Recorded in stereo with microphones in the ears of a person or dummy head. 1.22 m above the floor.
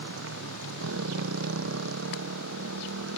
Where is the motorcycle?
85° right.